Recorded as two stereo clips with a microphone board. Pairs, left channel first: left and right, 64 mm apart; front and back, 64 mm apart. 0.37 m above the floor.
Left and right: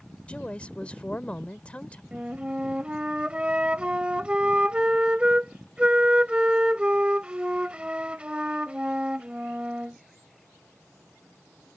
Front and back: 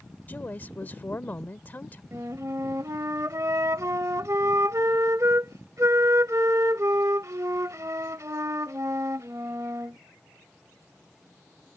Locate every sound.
0.3 s a woman speaking: 35° left
2.1 s a flute: 160° right